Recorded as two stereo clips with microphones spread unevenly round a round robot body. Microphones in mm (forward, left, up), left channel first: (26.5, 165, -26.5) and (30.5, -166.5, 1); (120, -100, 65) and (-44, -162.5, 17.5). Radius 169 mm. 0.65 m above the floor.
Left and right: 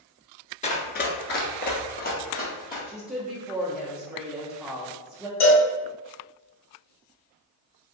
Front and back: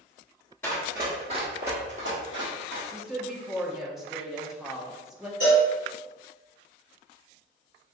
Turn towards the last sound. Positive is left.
turn(degrees=75)